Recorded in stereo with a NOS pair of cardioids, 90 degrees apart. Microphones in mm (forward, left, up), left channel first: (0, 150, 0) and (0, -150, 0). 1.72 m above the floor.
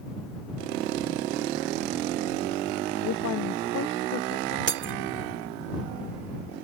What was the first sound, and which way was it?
A woman speaking, 65° left.